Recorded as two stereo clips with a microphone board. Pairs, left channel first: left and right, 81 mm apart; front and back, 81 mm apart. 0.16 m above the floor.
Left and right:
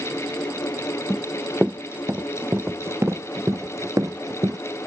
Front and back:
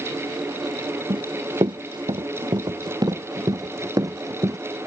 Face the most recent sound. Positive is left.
turn(degrees=-135)